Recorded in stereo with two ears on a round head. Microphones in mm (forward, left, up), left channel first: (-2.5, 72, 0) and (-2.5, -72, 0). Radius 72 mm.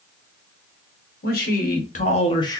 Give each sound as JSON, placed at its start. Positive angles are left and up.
{"t": 1.2, "sound": "a man speaking", "side_deg": 65, "distance_m": 1.5}